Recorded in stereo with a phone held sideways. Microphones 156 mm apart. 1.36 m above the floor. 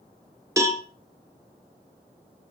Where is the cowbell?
20° right (ahead or behind), 1.0 m.